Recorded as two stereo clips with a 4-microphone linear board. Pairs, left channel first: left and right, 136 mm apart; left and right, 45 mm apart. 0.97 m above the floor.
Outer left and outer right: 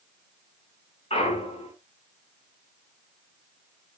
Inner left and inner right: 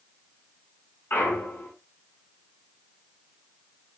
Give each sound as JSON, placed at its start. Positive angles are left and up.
{"t": 1.1, "sound": "a clunk", "side_deg": 50, "distance_m": 4.5}